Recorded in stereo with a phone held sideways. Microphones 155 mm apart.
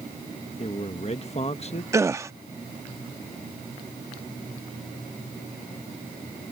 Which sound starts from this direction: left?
A man speaking, at 0.6 s.